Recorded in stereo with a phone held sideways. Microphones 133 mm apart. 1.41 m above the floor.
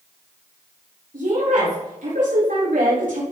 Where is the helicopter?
No helicopter in this recording.